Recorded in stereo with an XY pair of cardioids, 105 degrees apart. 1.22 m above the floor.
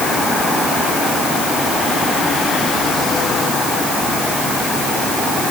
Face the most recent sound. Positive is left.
No sound to turn to.